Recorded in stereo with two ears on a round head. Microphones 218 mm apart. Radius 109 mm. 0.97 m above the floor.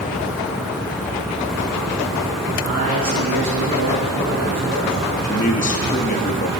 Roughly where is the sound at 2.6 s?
Right.